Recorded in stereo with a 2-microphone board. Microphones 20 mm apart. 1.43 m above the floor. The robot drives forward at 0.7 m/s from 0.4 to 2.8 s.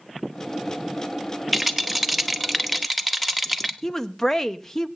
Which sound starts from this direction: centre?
A rattle, at 1.5 s.